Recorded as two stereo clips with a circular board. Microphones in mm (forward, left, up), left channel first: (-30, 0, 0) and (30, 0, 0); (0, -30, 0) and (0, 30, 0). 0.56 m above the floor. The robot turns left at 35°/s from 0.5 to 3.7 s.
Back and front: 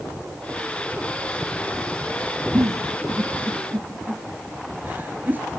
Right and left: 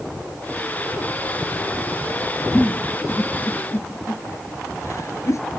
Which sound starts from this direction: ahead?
A giggle, at 2.5 s.